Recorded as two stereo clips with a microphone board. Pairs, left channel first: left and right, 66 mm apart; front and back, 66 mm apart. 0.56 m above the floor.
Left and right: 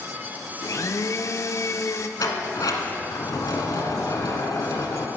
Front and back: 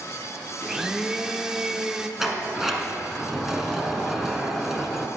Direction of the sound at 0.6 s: 100° left.